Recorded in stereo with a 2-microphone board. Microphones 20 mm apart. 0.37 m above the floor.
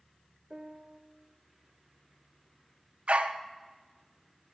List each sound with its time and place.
0.5 s a piano: 35° right (ahead or behind), 0.6 m
3.1 s a dog barking: 75° right (ahead or behind), 0.7 m